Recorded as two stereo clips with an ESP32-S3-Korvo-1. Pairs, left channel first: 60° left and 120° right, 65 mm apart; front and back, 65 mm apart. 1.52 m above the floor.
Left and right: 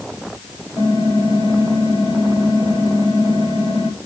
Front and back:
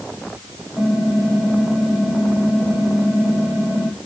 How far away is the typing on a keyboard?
About 7.5 m.